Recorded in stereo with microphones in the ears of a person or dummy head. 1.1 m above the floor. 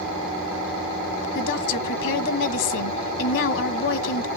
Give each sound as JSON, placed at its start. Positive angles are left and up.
{"t": 1.4, "sound": "a woman speaking", "side_deg": 65, "distance_m": 1.5}